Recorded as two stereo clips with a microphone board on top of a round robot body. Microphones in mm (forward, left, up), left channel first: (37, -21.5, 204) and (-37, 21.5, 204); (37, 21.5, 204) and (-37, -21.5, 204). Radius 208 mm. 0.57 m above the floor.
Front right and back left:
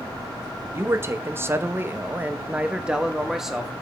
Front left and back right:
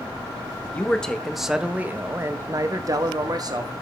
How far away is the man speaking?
About 1.5 m.